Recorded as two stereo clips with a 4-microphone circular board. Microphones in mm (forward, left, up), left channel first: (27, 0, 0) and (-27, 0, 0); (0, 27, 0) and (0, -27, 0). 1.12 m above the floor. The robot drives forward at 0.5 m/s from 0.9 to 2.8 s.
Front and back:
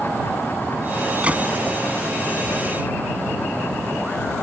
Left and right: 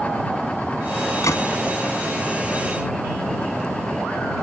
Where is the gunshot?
110° left; by 1.5 s 115° left.